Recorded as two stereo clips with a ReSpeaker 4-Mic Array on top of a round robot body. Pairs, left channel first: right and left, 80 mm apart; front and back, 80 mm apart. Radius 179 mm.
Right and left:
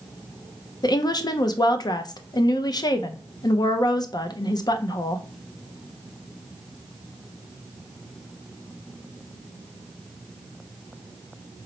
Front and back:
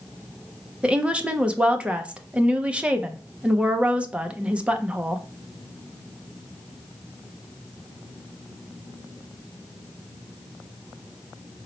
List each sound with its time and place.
0.8 s a woman speaking: 105° right, 0.6 m